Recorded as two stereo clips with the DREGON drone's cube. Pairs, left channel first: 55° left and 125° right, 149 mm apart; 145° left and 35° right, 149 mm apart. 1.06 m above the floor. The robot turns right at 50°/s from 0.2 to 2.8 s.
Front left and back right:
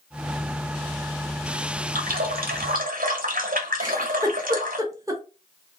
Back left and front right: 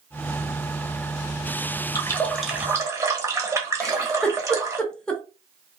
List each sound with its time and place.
1.9 s a running tap: 150° right, 0.8 m; by 4.8 s 105° right, 0.8 m
3.8 s a giggle: 140° right, 0.7 m